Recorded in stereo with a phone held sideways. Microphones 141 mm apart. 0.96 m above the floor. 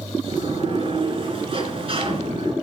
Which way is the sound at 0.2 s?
45° right (ahead or behind).